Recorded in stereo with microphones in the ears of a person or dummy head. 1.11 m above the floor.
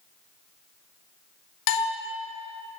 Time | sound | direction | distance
1.7 | a bell | 70° left (ahead or behind) | 1.7 m